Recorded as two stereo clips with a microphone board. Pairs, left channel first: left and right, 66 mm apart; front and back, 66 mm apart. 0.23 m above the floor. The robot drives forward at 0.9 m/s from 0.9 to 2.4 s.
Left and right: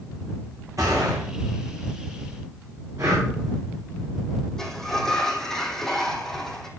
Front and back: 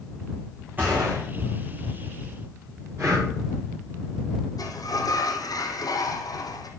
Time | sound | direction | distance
0.8 | a gunshot | 120° right | 6.5 m
3.0 | breathing | 130° right | 7.5 m
4.6 | a sliding door | 10° left | 2 m